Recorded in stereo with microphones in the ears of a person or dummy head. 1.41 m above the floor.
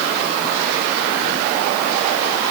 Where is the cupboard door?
No cupboard door in this recording.